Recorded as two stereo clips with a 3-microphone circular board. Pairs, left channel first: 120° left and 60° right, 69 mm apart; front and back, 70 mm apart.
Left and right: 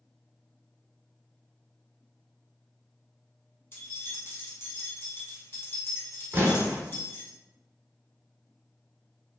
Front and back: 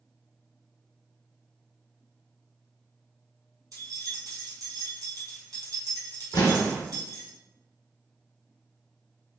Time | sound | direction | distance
3.7 | keys jangling | 165° left | 1.7 m
6.3 | an explosion | straight ahead | 1.1 m